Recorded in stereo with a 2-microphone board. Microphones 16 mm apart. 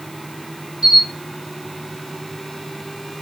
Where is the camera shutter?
5° right (ahead or behind), 2 m.